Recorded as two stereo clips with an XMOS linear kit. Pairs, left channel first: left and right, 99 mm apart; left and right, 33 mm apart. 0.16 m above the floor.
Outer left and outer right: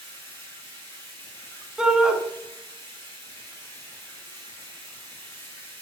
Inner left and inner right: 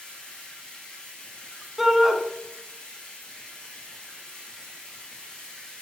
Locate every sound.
0.0 s running water: 30° left (ahead or behind), 6.5 m
1.8 s a shout: 5° right (ahead or behind), 1.5 m